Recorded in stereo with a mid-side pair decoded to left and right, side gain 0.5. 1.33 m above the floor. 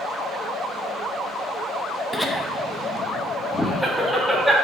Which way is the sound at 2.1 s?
15° left.